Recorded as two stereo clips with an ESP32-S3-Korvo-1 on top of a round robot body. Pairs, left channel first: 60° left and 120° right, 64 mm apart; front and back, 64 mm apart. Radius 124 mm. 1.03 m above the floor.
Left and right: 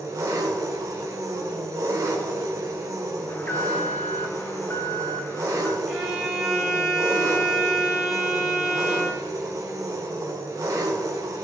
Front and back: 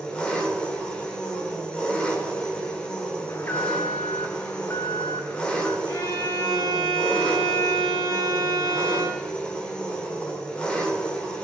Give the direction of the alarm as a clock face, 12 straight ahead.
11 o'clock.